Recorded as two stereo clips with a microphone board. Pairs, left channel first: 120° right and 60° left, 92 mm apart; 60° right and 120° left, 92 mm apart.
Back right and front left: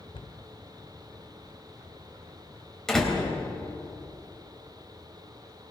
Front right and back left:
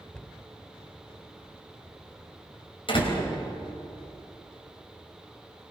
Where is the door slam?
35° right, 3.5 m.